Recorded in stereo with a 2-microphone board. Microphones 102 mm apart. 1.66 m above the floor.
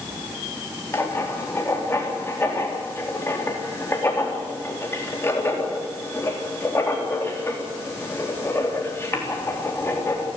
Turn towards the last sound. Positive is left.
turn(degrees=25)  # may be behind; listen again after turning